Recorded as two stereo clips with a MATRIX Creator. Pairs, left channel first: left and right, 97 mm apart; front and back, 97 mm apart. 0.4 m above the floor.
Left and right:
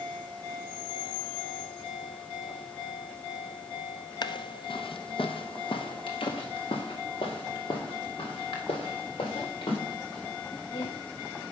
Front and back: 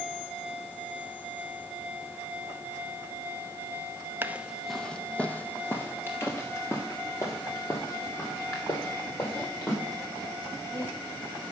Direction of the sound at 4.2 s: 115° left.